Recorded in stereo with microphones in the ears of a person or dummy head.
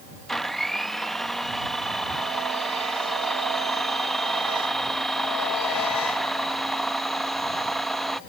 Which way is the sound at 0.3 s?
Centre (ahead or behind).